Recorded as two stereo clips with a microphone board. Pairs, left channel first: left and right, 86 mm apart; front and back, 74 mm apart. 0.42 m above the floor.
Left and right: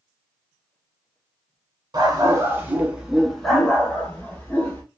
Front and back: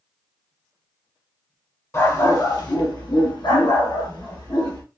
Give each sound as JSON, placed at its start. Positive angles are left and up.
{"t": 1.9, "sound": "a dog barking", "azimuth_deg": -50, "distance_m": 1.0}